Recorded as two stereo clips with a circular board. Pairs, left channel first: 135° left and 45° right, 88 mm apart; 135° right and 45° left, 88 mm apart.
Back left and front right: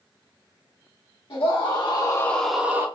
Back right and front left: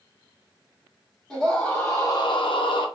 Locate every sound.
1.3 s a scream: 150° left, 1.0 m; by 2.9 s 110° right, 0.7 m